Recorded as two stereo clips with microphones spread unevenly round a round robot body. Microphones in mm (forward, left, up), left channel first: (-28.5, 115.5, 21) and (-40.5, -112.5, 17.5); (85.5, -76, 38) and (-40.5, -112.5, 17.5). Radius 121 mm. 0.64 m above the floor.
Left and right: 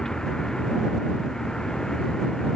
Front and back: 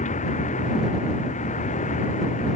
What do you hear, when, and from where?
0.0 s a vehicle: straight ahead